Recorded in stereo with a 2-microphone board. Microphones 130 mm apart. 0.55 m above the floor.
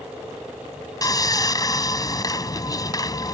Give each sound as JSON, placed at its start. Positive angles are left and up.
{"t": 1.0, "sound": "sawing", "side_deg": 30}